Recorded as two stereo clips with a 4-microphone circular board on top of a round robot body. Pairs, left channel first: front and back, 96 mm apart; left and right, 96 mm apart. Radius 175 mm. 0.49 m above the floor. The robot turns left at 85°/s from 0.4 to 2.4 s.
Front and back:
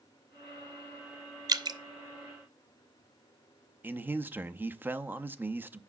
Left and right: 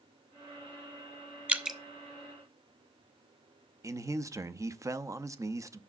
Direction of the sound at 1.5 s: 155° right.